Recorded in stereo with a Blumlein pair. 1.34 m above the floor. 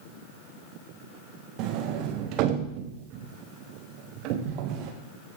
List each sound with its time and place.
1.6 s a sliding door: 40° right, 1.4 m